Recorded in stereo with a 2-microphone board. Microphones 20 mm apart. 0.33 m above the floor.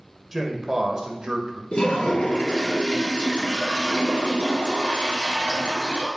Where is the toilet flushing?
60° left (ahead or behind), 2 m.